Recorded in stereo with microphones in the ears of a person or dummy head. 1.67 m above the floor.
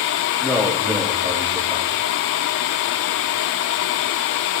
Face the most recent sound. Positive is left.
turn(degrees=5)  # may be behind; listen again after turning